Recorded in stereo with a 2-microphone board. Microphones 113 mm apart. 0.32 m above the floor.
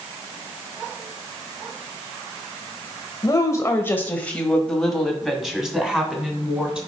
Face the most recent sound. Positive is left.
turn(degrees=-10)  # may be behind; listen again after turning